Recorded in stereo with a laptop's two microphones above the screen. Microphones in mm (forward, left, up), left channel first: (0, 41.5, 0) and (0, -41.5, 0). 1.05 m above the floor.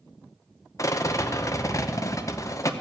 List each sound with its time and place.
0.8 s a rattle: 40° left (ahead or behind), 0.7 m